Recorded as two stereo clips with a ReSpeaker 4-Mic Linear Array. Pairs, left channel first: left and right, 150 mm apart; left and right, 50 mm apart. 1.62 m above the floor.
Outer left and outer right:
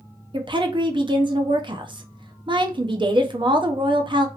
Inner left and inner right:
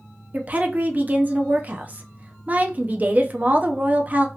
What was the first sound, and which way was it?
A woman speaking, 30° right (ahead or behind).